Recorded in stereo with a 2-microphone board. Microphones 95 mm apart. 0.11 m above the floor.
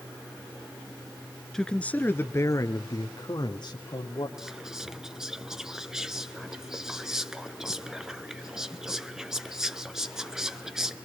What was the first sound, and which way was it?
A man speaking, 5° left (ahead or behind).